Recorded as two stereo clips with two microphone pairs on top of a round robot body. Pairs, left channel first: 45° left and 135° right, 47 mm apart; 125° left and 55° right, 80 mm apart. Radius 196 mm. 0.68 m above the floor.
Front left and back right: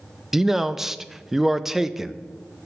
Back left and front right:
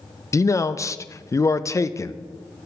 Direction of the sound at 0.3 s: 150° left.